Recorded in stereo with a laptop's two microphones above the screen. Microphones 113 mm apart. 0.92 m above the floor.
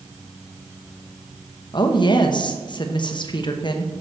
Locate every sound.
1.7 s a woman speaking: 45° left (ahead or behind), 0.8 m